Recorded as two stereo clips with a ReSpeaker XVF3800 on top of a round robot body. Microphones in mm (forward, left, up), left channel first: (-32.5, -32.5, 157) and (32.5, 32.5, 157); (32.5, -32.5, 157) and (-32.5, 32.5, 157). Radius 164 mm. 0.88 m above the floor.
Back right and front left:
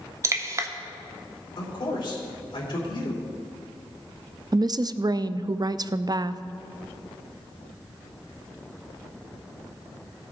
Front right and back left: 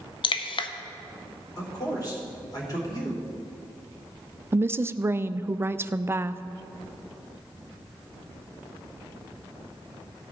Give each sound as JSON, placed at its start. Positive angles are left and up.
{"t": 0.2, "sound": "dripping", "azimuth_deg": -15, "distance_m": 0.6}
{"t": 1.6, "sound": "a man speaking", "azimuth_deg": -95, "distance_m": 3.0}
{"t": 4.5, "sound": "a woman speaking", "azimuth_deg": 75, "distance_m": 0.5}